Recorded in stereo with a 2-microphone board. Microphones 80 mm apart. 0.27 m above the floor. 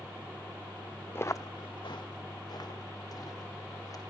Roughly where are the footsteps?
Left.